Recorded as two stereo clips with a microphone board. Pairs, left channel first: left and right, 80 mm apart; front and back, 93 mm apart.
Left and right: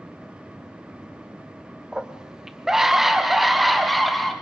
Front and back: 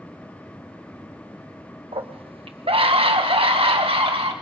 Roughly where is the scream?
Behind.